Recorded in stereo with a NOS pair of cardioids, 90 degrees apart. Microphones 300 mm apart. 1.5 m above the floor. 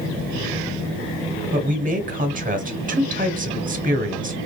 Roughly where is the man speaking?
Ahead right.